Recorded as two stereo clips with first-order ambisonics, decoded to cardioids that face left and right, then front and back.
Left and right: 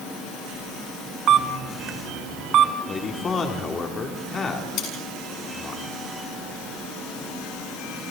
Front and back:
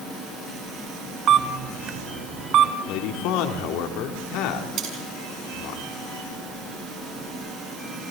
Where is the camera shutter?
135° right, 1.0 m.